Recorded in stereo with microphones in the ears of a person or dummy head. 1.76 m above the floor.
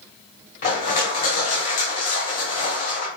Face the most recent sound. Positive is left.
turn(degrees=40)  # may be behind; listen again after turning